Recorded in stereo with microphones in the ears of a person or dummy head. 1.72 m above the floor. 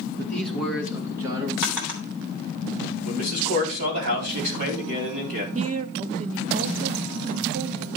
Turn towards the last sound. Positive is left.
turn(degrees=-40)  # may be behind; listen again after turning